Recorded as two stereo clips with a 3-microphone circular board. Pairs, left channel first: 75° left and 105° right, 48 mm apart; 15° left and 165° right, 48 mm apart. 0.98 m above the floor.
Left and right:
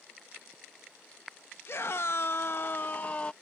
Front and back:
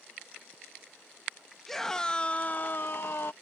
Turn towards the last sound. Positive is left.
turn(degrees=15)